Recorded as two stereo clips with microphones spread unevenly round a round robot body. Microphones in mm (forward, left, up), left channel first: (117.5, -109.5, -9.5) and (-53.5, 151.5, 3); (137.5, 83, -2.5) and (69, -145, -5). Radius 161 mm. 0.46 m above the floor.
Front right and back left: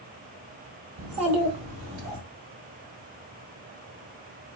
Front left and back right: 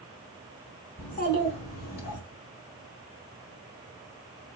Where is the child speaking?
150° left, 0.8 m; by 2.2 s 75° left, 1.6 m.